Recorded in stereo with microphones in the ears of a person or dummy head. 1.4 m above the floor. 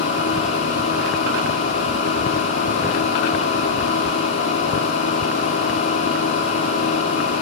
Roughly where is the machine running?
Left.